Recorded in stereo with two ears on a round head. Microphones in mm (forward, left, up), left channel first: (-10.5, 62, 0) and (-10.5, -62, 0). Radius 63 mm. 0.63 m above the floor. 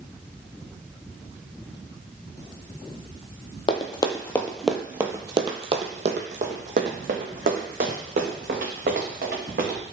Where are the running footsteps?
40° left (ahead or behind), 0.8 m; by 9.8 s 75° right (ahead or behind), 2.5 m.